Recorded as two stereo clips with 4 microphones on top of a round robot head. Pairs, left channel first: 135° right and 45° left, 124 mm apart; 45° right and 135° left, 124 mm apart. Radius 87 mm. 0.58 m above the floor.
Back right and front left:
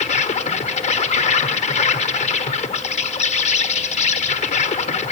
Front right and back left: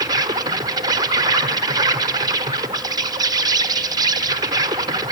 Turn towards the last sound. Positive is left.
turn(degrees=-165)